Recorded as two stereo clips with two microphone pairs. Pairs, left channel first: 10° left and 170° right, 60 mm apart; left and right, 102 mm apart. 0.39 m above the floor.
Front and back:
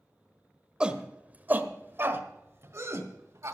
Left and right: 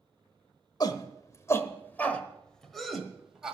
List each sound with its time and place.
0.8 s a shout: 120° left, 1.2 m; by 3.5 s 170° right, 1.7 m